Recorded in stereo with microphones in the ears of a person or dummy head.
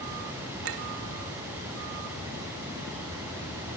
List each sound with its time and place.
0.6 s a clink: 75° right (ahead or behind), 2.5 m